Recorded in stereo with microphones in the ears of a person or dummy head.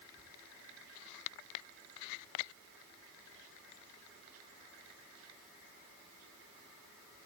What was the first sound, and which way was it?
Only background noise.